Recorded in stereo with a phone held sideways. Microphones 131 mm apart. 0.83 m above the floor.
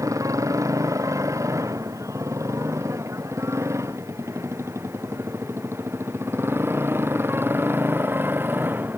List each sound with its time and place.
0.0 s a motorcycle: 25° right (ahead or behind); by 9.0 s 15° right (ahead or behind)